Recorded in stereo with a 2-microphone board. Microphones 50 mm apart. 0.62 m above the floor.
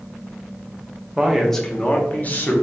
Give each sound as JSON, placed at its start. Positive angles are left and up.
{"t": 1.2, "sound": "a man speaking", "side_deg": -15, "distance_m": 0.6}